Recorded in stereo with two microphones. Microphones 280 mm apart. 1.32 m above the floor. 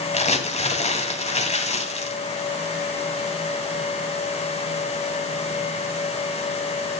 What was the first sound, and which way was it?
Crumpling, 25° left (ahead or behind).